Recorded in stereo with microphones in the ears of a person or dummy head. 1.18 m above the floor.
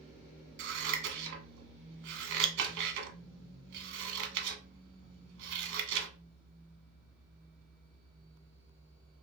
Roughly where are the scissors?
Right.